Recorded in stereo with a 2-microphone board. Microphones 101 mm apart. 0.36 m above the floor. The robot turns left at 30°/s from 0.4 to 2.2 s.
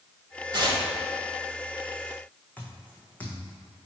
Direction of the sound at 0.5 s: 50° right (ahead or behind).